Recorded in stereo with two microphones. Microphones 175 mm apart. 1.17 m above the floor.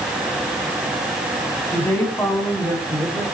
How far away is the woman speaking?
About 10 m.